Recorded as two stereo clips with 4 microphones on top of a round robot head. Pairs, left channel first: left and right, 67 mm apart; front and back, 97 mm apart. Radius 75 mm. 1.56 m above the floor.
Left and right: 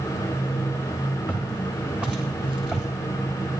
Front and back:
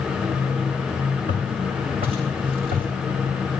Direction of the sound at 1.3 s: 155° right.